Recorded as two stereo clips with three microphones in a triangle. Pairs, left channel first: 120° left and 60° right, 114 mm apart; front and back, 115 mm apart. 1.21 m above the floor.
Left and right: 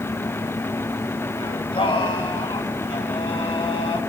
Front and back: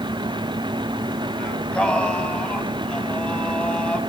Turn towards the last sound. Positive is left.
turn(degrees=80)